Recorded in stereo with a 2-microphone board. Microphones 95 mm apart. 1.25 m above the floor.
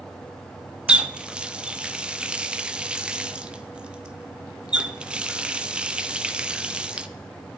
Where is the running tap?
10° right (ahead or behind), 0.5 m.